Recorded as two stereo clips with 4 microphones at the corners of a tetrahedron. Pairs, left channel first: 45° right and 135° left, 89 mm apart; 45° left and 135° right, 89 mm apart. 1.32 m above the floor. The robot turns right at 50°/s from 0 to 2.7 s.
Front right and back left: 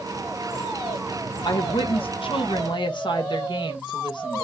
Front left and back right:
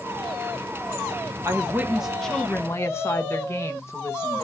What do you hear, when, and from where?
1.4 s a woman speaking: 80° right, 1.1 m; by 4.5 s 15° right, 1.1 m